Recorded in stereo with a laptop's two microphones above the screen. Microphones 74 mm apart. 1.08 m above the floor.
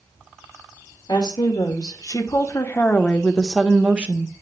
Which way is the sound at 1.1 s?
70° left (ahead or behind).